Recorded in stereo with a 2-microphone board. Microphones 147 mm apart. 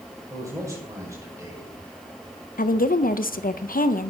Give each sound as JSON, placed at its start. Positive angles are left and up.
{"t": 0.3, "sound": "a man speaking", "side_deg": -20, "distance_m": 5.5}
{"t": 2.6, "sound": "a woman speaking", "side_deg": 75, "distance_m": 0.7}